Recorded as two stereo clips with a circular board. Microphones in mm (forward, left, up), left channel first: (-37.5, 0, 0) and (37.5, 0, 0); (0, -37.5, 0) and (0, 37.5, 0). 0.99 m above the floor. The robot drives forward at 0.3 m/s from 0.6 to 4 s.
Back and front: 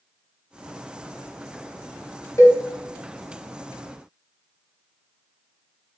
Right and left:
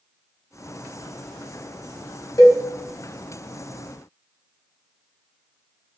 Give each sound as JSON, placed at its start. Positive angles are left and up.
{"t": 2.4, "sound": "a cowbell", "azimuth_deg": -135, "distance_m": 0.9}